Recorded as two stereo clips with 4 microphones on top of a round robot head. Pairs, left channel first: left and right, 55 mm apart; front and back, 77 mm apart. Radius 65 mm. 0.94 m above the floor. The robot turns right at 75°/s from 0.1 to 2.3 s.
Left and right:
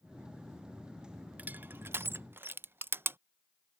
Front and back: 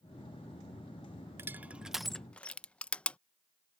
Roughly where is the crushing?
Behind right.